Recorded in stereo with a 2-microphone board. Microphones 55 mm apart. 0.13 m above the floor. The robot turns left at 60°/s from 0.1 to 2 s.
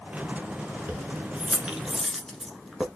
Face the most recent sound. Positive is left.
turn(degrees=0)  # may be behind; listen again after turning